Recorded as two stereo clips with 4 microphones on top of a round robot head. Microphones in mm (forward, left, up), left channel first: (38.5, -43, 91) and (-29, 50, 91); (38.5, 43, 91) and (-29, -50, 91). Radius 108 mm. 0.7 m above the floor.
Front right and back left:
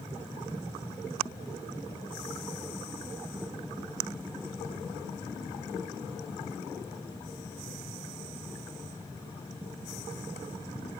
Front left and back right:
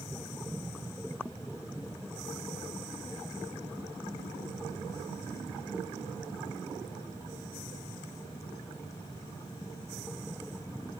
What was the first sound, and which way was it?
Only background noise.